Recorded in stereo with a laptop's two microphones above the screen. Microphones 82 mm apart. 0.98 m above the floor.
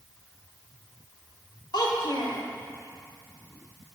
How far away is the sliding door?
No sliding door in this recording.